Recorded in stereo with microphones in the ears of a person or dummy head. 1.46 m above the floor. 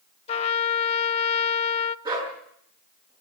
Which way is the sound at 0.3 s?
35° left (ahead or behind).